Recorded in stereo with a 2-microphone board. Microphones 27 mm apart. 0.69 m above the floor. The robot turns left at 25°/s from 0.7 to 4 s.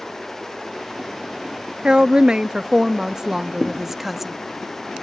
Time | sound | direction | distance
1.8 | a woman speaking | 105° right | 0.5 m
3.6 | a thud | centre (ahead or behind) | 1.3 m